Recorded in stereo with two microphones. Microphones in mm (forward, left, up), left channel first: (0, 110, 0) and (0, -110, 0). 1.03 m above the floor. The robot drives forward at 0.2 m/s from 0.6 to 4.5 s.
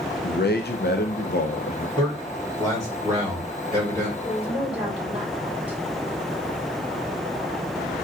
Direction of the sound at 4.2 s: 5° right (ahead or behind).